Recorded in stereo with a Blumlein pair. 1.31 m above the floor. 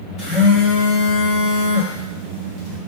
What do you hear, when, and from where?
0.2 s a phone buzzing: 25° left, 2.5 m